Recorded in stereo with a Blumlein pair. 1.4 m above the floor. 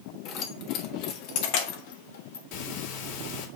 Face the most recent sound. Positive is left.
turn(degrees=45)